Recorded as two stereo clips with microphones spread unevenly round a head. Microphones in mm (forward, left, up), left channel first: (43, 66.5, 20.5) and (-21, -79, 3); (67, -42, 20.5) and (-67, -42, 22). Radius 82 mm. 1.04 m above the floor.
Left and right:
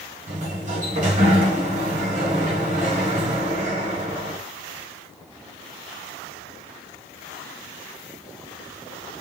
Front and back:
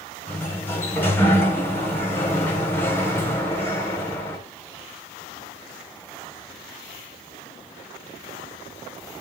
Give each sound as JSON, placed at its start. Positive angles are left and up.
{"t": 0.3, "sound": "a sliding door", "azimuth_deg": -75, "distance_m": 5.0}